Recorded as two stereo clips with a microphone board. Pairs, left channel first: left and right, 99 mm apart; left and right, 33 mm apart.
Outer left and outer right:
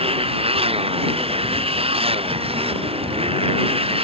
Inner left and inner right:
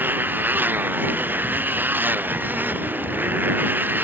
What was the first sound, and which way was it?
A motorcycle, 75° right (ahead or behind).